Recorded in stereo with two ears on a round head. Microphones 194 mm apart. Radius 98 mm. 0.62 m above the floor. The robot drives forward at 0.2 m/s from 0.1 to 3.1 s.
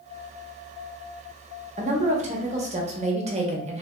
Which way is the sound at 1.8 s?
30° right (ahead or behind).